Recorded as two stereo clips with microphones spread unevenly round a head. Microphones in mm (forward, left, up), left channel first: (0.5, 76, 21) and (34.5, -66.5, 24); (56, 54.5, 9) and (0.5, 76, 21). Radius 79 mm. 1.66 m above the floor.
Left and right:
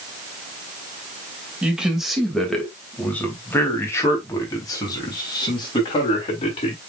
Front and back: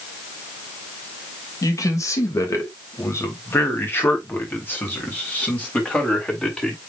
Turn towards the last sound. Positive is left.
turn(degrees=50)